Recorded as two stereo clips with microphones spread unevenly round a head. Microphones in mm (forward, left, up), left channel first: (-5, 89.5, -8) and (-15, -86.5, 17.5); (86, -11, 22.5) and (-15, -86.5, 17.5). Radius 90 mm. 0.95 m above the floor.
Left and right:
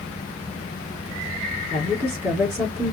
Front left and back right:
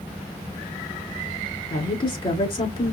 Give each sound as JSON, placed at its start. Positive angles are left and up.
{"t": 1.7, "sound": "a woman speaking", "azimuth_deg": -15, "distance_m": 3.5}